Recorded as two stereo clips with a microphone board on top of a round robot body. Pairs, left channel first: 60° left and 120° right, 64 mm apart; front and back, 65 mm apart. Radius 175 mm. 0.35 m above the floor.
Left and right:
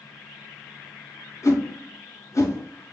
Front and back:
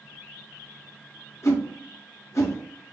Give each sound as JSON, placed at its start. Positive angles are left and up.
{"t": 1.4, "sound": "a whoosh", "azimuth_deg": 30, "distance_m": 1.0}